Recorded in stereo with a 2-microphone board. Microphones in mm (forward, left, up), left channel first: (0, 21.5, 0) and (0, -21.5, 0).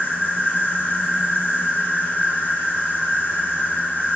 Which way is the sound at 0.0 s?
50° left (ahead or behind).